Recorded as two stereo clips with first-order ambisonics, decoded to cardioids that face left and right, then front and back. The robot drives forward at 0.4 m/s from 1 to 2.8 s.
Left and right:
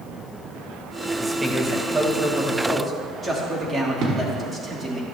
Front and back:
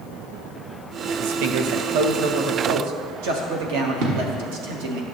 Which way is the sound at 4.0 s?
145° right.